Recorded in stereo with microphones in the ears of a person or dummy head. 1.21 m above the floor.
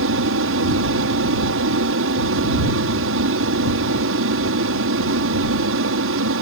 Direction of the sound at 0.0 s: 60° right (ahead or behind).